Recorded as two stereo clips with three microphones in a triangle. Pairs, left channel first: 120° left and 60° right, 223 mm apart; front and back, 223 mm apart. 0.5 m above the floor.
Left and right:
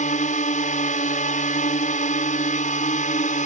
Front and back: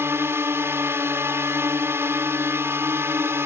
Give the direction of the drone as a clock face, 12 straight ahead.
8 o'clock.